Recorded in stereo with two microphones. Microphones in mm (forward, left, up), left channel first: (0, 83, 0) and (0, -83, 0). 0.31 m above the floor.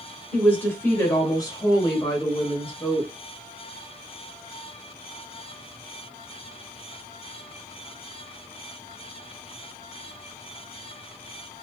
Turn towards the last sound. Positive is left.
turn(degrees=35)  # may be behind; listen again after turning